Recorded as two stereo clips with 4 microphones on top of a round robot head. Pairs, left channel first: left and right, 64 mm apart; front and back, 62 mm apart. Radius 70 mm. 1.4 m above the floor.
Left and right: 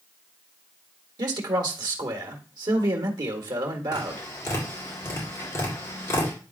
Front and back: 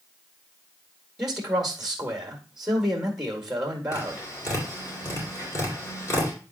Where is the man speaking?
95° right, 1.5 m.